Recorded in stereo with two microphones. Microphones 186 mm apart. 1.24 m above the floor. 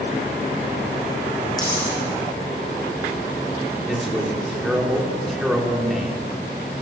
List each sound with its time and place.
1.6 s a dropped coin: 20° left (ahead or behind), 9.5 m
3.9 s a man speaking: centre (ahead or behind), 4 m